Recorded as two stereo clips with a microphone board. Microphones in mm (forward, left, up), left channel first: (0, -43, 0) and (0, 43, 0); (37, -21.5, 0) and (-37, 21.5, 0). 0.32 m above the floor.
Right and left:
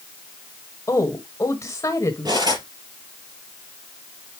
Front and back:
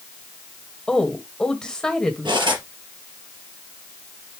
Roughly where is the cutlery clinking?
Behind left.